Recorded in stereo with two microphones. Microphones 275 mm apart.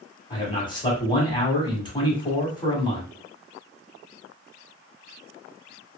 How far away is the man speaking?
About 1.1 m.